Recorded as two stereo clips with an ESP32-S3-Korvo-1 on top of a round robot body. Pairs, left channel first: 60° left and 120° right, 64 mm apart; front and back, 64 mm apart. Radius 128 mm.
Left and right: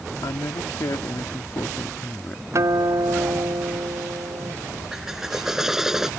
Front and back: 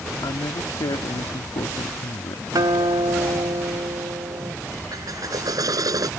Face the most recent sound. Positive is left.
turn(degrees=155)